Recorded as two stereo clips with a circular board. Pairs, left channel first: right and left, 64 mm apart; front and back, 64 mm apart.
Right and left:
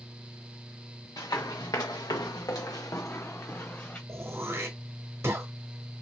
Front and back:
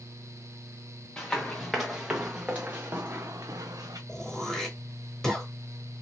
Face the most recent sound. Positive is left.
turn(degrees=80)